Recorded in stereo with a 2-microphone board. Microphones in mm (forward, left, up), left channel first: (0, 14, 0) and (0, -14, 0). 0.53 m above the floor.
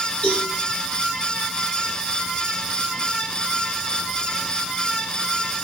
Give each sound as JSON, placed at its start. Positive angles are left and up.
{"t": 0.2, "sound": "a cowbell", "side_deg": 55, "distance_m": 3.0}